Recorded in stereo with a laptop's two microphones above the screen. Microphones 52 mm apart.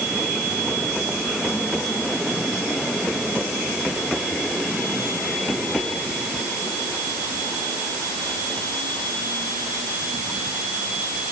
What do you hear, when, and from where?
Only background noise.